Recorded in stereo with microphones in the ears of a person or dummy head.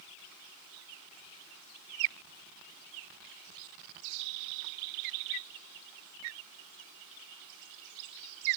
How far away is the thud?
I don't hear a thud.